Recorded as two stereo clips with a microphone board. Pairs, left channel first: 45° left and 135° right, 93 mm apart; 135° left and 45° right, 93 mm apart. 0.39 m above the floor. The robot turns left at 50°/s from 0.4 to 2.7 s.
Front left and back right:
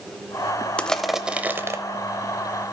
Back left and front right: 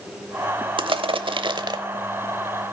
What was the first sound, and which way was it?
Crushing, 30° right.